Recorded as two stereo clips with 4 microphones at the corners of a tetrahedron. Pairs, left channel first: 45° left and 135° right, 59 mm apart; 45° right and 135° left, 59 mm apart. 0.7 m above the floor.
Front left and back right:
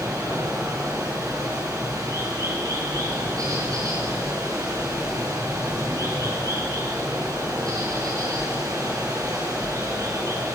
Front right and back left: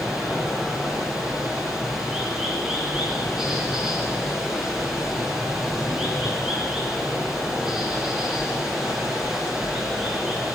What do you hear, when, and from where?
0.0 s running water: 145° right, 6.5 m